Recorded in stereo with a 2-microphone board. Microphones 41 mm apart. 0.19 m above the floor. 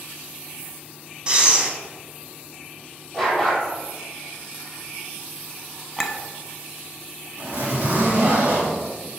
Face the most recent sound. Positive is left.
turn(degrees=-55)  # may be behind; listen again after turning